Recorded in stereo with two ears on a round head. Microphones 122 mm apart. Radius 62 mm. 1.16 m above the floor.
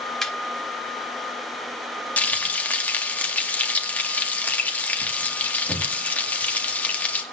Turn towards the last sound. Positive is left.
turn(degrees=10)  # may be behind; listen again after turning